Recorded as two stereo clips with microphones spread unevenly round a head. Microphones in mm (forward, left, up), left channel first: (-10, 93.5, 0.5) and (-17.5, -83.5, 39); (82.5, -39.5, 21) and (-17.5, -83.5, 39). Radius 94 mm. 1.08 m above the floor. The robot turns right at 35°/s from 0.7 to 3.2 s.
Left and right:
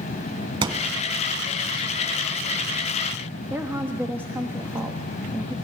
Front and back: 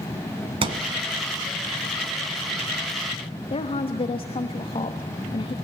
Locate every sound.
0.6 s a thud: 145° right, 1.7 m; by 1.0 s 135° right, 1.7 m
3.5 s a woman speaking: 10° right, 1.2 m